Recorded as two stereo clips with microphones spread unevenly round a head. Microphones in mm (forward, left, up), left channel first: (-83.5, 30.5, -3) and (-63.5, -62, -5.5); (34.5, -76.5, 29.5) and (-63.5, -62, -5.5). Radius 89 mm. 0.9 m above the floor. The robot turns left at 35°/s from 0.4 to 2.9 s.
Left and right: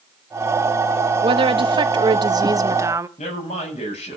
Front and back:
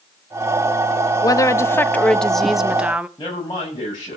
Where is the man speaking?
60° left, 7 m.